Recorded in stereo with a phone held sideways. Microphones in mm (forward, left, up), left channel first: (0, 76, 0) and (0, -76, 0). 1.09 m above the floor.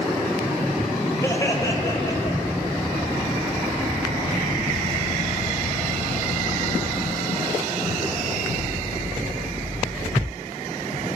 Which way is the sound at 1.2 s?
20° left (ahead or behind).